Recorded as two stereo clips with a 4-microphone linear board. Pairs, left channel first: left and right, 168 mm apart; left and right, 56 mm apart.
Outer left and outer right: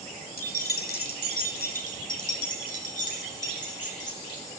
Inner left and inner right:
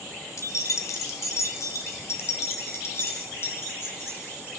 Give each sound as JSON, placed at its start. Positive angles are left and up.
{"t": 0.4, "sound": "keys jangling", "side_deg": 60, "distance_m": 1.1}